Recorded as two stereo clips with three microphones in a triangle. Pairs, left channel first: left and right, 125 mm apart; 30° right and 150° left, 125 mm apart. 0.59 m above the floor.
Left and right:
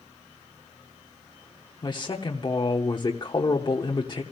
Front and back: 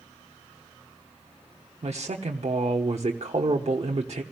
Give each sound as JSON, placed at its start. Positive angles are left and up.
{"t": 1.8, "sound": "a man speaking", "azimuth_deg": 135, "distance_m": 1.1}